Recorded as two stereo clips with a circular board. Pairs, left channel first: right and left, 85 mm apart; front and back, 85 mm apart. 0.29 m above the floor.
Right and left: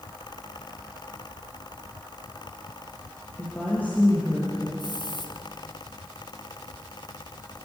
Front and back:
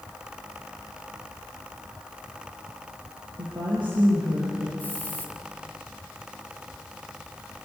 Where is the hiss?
70° right, 3.5 m.